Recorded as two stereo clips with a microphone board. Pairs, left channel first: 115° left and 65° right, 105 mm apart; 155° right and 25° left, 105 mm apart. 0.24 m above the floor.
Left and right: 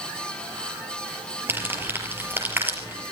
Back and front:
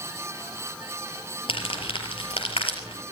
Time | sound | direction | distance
1.5 | crumpling | 135° right | 6 m